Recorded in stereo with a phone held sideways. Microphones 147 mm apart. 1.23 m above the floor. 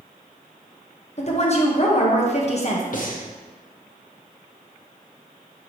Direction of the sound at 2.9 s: 60° left (ahead or behind).